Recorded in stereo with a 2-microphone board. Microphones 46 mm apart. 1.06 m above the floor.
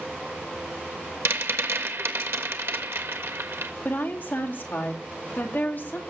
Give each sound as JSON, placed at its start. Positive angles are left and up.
{"t": 1.2, "sound": "a rattle", "side_deg": -65, "distance_m": 1.3}
{"t": 3.9, "sound": "a woman speaking", "side_deg": 45, "distance_m": 2.5}